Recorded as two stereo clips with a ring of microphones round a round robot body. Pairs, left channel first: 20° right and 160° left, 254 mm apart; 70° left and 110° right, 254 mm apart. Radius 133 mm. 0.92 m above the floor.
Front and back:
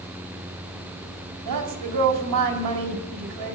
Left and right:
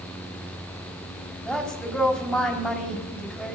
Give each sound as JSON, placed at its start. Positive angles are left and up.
{"t": 1.4, "sound": "a woman speaking", "azimuth_deg": 155, "distance_m": 4.0}